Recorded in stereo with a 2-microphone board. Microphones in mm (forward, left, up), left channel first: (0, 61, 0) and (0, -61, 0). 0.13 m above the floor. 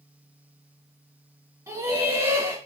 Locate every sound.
1.7 s laughter: 30° right (ahead or behind), 1.7 m